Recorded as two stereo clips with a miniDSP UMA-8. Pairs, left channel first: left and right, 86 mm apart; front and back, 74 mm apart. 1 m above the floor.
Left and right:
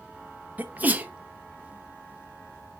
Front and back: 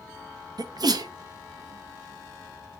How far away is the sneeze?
About 0.7 m.